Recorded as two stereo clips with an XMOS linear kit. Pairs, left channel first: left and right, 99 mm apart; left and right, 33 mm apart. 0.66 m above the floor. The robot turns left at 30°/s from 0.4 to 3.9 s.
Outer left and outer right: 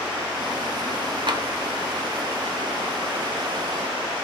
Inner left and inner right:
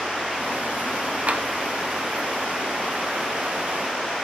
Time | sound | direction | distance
1.3 | tapping | 50° right (ahead or behind) | 0.7 m